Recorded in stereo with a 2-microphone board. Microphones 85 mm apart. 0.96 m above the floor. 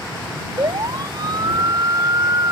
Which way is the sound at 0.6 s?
60° right (ahead or behind).